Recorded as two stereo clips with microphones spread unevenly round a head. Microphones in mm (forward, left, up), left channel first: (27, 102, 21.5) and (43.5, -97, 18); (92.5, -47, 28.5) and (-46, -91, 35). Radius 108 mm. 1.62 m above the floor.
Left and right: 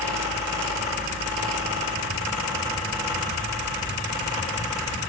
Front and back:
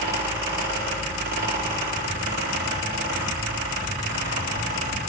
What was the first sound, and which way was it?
A fan, 165° right.